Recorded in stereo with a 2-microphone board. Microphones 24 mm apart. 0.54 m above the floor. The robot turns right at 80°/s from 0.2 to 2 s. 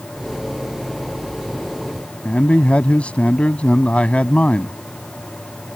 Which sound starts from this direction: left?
A man speaking, at 2.2 s.